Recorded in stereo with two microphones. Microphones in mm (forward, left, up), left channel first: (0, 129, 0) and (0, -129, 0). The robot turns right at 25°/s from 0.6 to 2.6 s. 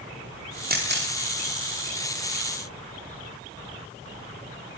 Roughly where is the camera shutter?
Right.